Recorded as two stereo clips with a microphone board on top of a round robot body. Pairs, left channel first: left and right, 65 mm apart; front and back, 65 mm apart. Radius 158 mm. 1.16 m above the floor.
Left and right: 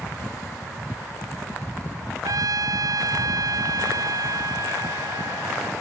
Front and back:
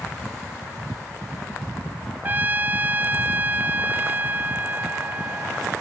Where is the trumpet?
120° right.